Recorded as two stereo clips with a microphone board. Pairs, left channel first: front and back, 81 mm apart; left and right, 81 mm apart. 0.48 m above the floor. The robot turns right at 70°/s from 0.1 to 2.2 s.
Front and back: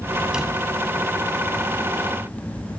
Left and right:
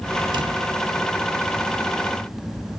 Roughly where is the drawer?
Right.